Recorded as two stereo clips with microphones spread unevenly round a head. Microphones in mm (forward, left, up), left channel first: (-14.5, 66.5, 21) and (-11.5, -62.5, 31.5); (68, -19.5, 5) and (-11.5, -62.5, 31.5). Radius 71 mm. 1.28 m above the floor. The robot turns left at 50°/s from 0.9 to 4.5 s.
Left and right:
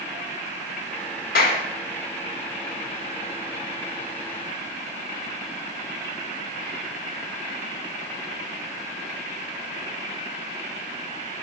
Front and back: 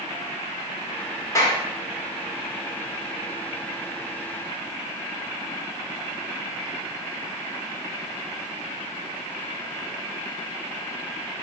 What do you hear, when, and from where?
1.4 s a clap: 95° left, 1.5 m; by 1.6 s 80° left, 1.5 m